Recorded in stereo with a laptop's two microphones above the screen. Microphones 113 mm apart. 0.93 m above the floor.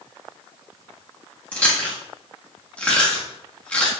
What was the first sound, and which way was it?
Chewing, 15° left (ahead or behind).